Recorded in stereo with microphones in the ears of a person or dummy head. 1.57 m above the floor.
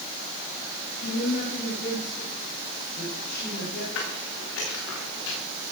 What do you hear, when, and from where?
1.0 s a woman speaking: 55° left (ahead or behind), 9 m; by 3.9 s 65° left (ahead or behind), 11 m
4.0 s footsteps: 75° left (ahead or behind), 9 m; by 5.4 s 80° left, 11 m